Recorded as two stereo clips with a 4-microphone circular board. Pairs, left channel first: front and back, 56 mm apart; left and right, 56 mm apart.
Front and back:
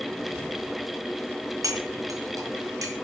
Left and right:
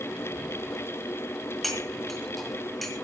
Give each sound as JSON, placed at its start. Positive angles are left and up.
{"t": 1.6, "sound": "cutlery clinking", "azimuth_deg": 175, "distance_m": 3.5}